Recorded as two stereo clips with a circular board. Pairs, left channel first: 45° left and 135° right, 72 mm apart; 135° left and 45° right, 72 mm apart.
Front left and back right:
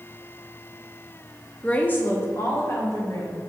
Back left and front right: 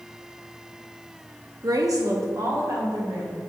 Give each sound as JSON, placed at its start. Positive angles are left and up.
{"t": 1.6, "sound": "a woman speaking", "azimuth_deg": -25, "distance_m": 0.9}